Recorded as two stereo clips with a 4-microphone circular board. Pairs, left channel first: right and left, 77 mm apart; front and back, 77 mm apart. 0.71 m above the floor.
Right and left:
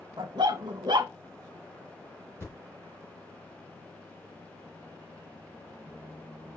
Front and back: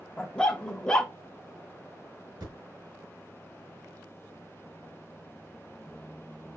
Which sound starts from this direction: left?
A dog barking, at 0.2 s.